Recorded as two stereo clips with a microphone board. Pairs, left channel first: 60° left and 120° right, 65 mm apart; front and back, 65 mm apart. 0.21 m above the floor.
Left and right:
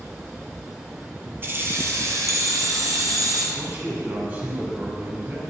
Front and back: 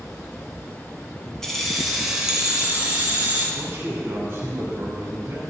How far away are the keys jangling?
About 1.4 m.